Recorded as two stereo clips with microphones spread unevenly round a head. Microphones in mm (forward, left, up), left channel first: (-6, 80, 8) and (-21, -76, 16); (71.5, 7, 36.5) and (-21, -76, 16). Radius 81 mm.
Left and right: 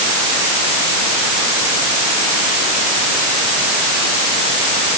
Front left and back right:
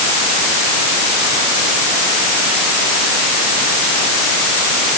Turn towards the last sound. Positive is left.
No sound to turn to.